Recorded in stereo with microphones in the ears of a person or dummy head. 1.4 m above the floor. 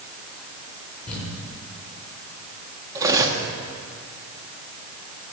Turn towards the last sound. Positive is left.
turn(degrees=-20)  # may be behind; listen again after turning